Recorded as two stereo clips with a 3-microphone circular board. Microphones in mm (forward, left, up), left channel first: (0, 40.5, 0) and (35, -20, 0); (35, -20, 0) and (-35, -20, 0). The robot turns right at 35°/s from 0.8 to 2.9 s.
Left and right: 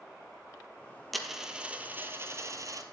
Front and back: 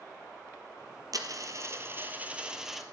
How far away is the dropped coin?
About 1.1 m.